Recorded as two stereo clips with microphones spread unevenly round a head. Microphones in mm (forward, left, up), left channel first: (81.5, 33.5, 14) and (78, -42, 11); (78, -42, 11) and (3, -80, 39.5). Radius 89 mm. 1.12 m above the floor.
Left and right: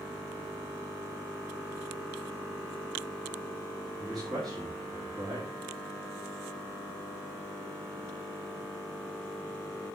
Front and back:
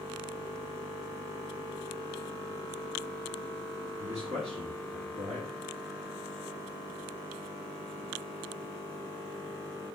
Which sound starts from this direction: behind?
A man speaking, at 4.0 s.